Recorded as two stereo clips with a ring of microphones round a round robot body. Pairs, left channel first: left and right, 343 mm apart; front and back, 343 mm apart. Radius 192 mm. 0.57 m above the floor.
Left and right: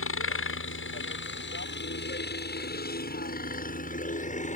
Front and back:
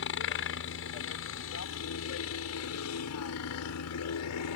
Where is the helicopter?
50° left; by 4.6 s 25° left.